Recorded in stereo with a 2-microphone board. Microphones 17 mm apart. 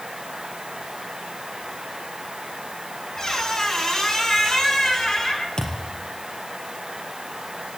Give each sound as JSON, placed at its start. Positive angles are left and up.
{"t": 3.2, "sound": "a squeak", "side_deg": 30, "distance_m": 5.5}
{"t": 5.6, "sound": "a thud", "side_deg": 45, "distance_m": 5.0}